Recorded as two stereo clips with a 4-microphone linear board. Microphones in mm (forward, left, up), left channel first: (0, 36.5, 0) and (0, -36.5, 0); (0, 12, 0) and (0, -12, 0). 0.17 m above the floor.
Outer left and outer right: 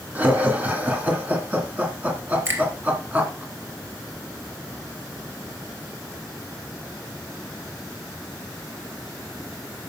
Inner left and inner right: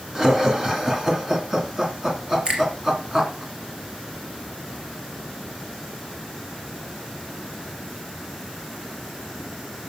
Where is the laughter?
20° right (ahead or behind), 2.5 m.